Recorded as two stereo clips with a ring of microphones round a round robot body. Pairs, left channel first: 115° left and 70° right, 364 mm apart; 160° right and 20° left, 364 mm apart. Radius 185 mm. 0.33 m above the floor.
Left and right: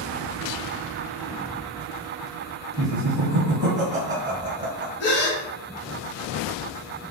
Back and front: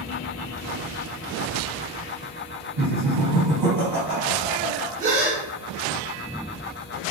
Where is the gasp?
85° left, 1.2 m.